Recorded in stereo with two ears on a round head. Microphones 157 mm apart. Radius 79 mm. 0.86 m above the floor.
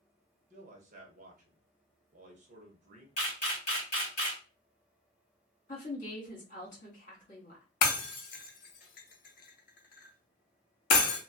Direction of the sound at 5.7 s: 45° left (ahead or behind).